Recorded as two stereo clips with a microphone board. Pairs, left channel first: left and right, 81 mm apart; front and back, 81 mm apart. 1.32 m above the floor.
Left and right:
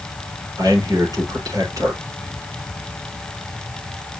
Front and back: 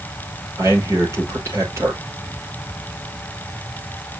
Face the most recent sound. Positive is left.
turn(degrees=-130)